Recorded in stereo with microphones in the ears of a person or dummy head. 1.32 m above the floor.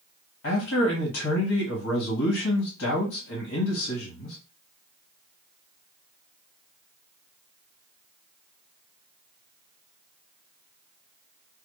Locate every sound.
0.4 s a man speaking: 65° left (ahead or behind), 1.3 m